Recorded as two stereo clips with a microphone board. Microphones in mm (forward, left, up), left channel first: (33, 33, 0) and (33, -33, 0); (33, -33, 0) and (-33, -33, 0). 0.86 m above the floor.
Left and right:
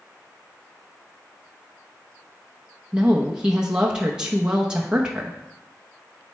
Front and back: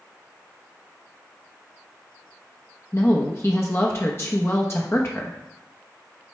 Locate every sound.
2.9 s a woman speaking: 20° right, 0.9 m